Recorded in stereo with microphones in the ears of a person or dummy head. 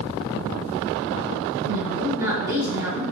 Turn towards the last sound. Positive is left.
turn(degrees=-15)  # may be behind; listen again after turning